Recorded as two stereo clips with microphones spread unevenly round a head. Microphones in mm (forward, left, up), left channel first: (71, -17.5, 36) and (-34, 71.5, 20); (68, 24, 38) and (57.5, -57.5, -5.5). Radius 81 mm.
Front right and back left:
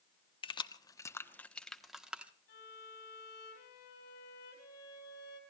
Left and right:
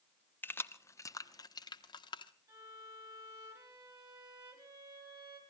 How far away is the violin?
About 6 m.